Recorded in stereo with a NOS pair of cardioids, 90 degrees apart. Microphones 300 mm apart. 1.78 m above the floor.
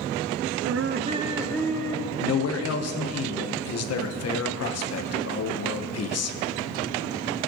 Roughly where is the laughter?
Ahead right.